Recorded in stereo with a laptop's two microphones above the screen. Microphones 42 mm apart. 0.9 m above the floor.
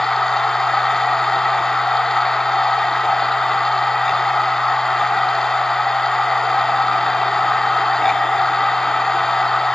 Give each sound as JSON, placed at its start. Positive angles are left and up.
{"t": 0.0, "sound": "a machine running", "side_deg": 10, "distance_m": 0.9}